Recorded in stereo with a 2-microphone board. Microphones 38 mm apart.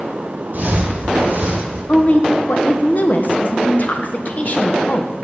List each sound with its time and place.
0.5 s footsteps: 50° right (ahead or behind), 1.7 m
1.9 s a woman speaking: 45° left (ahead or behind), 0.6 m